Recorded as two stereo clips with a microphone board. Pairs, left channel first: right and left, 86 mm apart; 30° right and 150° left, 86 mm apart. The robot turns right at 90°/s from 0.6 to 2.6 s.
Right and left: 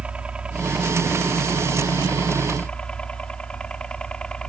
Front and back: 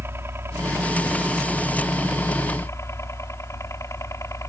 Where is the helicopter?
155° left; by 4.5 s 15° right.